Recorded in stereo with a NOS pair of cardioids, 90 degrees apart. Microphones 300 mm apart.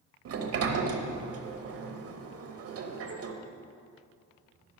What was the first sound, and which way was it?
A sliding door, 55° right.